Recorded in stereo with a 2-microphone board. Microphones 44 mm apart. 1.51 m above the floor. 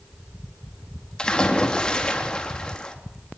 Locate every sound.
1.2 s a splash: 20° left (ahead or behind), 3.5 m